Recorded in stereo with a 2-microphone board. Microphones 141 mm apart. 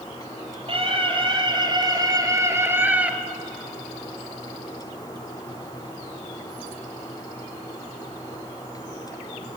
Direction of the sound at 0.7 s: 40° right (ahead or behind).